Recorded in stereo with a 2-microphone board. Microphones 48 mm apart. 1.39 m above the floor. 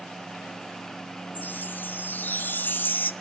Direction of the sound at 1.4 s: 40° left (ahead or behind).